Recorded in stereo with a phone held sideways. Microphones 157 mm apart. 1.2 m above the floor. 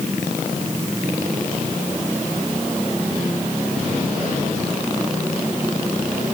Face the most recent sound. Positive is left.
No sound to turn to.